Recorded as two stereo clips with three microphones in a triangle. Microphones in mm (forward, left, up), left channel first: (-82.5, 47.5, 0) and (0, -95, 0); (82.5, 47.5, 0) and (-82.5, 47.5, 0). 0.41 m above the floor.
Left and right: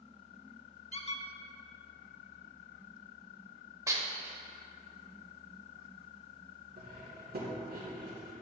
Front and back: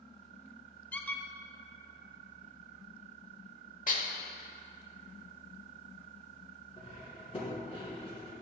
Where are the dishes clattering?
5° left, 0.9 m.